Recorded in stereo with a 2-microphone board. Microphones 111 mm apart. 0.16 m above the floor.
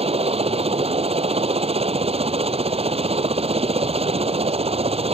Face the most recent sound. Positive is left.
turn(degrees=-65)  # may be behind; listen again after turning